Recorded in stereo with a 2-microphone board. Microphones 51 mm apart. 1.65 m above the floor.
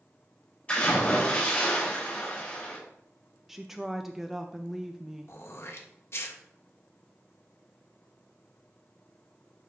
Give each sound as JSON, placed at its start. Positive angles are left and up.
{"t": 0.7, "sound": "a splash", "side_deg": 25, "distance_m": 3.5}
{"t": 3.5, "sound": "a woman speaking", "side_deg": -5, "distance_m": 0.5}
{"t": 5.3, "sound": "throat clearing", "side_deg": 55, "distance_m": 1.0}